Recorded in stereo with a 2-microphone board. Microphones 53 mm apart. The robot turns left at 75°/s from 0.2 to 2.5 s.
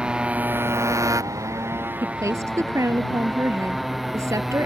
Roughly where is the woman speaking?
Ahead right.